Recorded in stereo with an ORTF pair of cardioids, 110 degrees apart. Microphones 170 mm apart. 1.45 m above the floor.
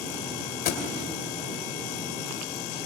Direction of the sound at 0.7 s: 60° left.